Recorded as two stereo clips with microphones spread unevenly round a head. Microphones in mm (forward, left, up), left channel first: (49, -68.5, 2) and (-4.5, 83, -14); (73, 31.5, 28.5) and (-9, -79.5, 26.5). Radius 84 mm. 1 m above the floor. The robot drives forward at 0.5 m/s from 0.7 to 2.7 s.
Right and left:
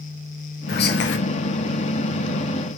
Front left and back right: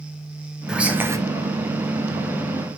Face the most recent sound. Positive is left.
turn(degrees=-130)